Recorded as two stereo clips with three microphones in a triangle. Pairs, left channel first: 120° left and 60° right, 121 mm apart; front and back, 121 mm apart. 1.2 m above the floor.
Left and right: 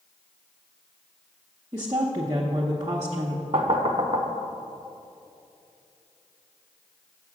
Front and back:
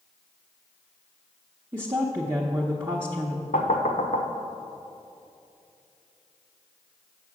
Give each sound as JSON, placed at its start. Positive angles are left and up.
{"t": 1.7, "sound": "a woman speaking", "azimuth_deg": -115, "distance_m": 0.8}
{"t": 3.5, "sound": "knocking", "azimuth_deg": -15, "distance_m": 0.7}